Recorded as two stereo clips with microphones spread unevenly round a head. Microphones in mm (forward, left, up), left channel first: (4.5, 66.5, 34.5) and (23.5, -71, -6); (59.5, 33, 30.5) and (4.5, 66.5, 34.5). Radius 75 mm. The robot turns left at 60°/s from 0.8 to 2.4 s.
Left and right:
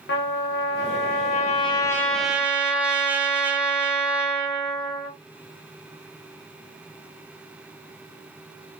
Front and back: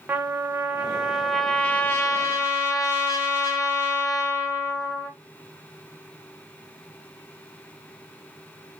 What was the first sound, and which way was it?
A trumpet, 85° left.